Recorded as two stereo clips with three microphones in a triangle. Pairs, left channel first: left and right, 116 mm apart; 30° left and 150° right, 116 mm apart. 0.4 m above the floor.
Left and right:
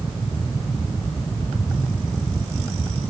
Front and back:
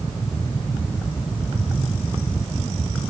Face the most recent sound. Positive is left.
No sound to turn to.